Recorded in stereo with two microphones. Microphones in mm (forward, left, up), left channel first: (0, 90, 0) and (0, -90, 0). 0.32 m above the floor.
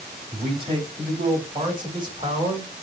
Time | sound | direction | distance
0.3 | a man speaking | 30° right (ahead or behind) | 2 m